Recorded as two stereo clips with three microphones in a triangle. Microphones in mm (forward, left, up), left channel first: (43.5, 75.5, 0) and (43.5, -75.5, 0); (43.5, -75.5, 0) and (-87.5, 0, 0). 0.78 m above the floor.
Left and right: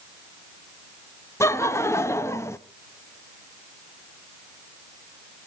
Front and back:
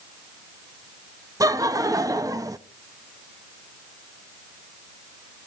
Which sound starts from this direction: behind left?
Laughter, at 1.4 s.